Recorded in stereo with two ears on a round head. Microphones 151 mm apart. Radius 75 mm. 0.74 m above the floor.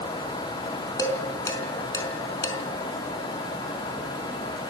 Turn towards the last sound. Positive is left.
turn(degrees=20)  # may be behind; listen again after turning